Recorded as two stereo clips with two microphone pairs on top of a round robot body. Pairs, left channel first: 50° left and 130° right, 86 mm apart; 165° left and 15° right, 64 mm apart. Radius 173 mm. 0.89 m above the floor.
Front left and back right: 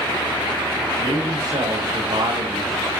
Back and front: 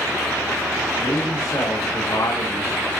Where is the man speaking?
165° right, 2.0 m.